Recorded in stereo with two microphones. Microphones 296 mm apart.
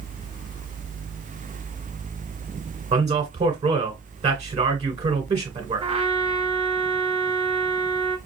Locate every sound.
2.9 s a man speaking: 20° right (ahead or behind), 1.7 m
5.8 s a trumpet: 20° right (ahead or behind), 1.3 m